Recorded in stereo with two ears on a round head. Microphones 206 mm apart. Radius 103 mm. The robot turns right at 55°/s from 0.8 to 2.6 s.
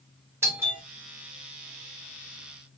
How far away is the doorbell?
About 1.5 m.